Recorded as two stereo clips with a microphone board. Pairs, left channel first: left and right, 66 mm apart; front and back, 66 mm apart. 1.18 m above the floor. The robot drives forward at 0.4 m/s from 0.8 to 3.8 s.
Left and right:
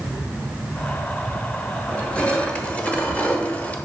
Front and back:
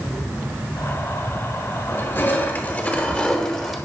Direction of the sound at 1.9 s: 25° left.